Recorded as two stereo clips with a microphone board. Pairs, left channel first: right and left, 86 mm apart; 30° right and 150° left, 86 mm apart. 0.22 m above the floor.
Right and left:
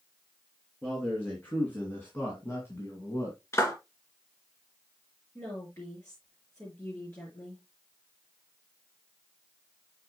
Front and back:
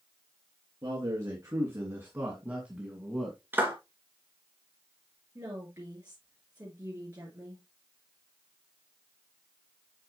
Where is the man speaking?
165° right, 3 m; by 3.4 s 115° right, 1.6 m.